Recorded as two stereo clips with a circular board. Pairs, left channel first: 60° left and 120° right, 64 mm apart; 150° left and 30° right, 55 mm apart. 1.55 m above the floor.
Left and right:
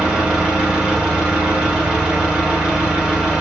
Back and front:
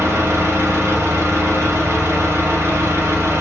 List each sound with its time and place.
0.0 s an engine running: 50° right, 1.9 m